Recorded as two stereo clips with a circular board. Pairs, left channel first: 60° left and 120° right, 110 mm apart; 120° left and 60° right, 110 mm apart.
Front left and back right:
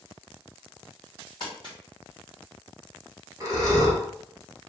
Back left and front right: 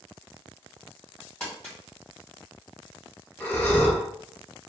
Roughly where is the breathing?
Behind.